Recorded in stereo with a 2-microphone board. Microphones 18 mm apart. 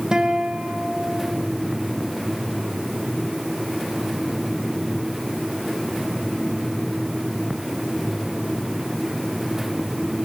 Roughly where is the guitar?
Right.